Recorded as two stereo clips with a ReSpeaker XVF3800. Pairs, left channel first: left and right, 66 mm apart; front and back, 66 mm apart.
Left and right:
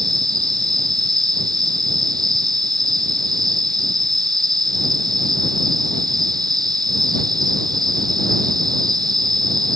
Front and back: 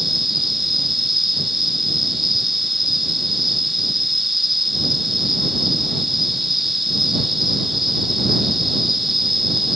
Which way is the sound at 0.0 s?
95° right.